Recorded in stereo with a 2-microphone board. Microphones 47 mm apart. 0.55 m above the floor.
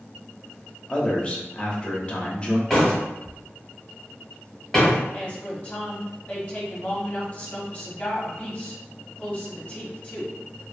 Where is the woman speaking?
30° left (ahead or behind), 0.9 m.